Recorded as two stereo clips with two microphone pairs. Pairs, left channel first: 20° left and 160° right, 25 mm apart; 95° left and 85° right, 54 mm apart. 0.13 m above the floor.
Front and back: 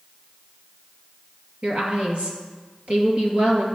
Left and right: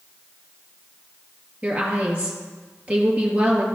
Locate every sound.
1.6 s a woman speaking: 145° right, 2.5 m